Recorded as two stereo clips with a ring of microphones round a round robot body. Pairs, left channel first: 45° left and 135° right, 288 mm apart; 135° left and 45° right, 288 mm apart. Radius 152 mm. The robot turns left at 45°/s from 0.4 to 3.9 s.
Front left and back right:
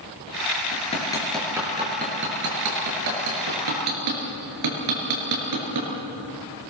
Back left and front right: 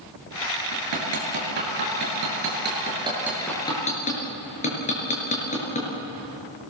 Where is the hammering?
15° right, 6 m; by 5.9 s 160° right, 6 m.